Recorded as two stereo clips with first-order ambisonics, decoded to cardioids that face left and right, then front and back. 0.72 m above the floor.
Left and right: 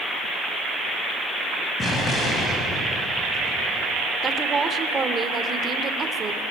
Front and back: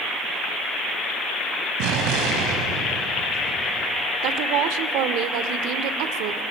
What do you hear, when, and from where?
1.8 s an explosion: 165° left, 5 m
4.2 s a woman speaking: 160° right, 1.9 m